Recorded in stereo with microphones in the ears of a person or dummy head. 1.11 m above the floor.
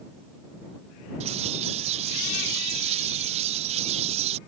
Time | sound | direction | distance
1.2 | a bird | 30° right (ahead or behind) | ?